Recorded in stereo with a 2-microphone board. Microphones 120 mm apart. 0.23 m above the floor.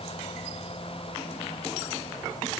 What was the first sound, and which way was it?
Only background noise.